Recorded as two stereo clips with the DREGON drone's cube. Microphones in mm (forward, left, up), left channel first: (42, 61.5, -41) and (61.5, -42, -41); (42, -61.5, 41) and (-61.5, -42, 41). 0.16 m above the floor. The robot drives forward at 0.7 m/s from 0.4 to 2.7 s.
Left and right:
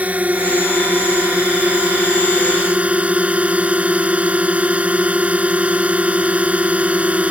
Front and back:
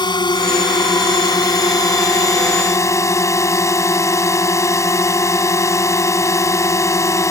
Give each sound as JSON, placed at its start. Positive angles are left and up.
{"t": 0.0, "sound": "a drone", "azimuth_deg": -10}